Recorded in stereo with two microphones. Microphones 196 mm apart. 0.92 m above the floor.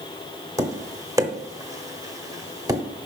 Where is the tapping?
15° right (ahead or behind), 0.8 m.